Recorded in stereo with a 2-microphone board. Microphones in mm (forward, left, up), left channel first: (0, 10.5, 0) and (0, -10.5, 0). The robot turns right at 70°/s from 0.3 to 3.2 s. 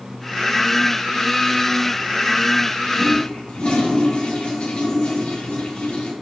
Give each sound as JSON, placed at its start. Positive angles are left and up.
{"t": 3.0, "sound": "a toilet flushing", "side_deg": 60, "distance_m": 3.0}